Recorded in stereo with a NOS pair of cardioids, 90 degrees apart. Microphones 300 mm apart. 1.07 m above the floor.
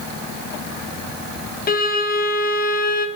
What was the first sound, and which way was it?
A violin, 30° left.